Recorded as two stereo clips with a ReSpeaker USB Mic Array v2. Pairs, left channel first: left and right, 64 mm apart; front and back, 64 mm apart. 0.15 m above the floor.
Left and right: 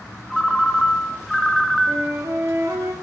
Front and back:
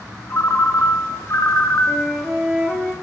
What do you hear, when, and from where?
0.3 s a ringtone: 5° left, 0.8 m
1.9 s a flute: 100° right, 1.4 m